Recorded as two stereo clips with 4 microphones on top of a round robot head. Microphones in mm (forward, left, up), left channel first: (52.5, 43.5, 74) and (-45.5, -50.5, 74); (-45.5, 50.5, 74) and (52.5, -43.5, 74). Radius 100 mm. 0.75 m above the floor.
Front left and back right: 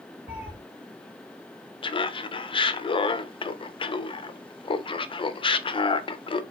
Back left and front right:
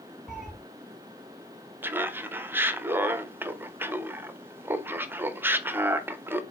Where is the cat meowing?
135° right, 1.4 m.